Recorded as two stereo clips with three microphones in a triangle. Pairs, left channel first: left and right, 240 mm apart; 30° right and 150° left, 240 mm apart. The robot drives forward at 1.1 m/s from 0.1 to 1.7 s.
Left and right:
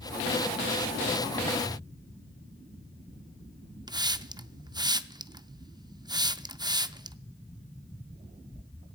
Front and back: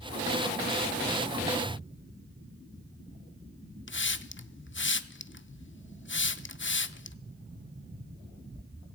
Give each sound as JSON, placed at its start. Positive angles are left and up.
{"t": 3.9, "sound": "a hiss", "azimuth_deg": -20, "distance_m": 0.5}